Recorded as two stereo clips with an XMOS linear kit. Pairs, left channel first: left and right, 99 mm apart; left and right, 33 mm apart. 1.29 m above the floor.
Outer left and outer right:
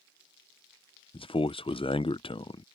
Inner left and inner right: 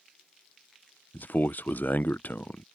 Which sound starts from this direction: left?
A man speaking, at 1.1 s.